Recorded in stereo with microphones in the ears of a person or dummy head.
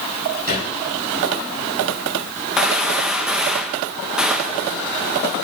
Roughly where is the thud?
Right.